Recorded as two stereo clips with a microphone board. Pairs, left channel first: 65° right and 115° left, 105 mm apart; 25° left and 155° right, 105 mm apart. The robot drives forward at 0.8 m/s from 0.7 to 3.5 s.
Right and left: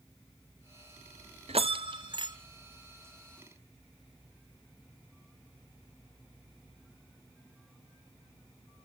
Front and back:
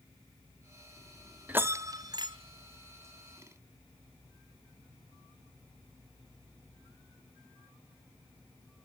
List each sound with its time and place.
1.5 s a bell: 125° left, 0.6 m; by 2.4 s 155° left, 1.1 m